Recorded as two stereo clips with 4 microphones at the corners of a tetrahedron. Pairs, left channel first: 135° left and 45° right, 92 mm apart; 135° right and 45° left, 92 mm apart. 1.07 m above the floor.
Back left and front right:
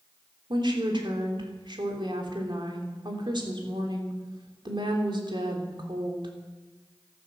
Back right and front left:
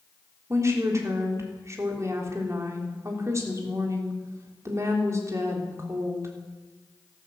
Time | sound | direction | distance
0.5 | a woman speaking | 15° right | 3.5 m